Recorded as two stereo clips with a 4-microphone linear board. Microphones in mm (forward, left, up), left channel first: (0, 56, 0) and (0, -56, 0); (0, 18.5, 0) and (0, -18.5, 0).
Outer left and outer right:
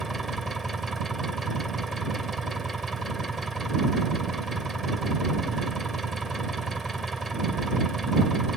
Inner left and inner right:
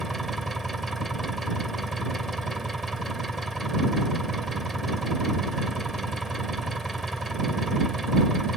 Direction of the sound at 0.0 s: Centre (ahead or behind).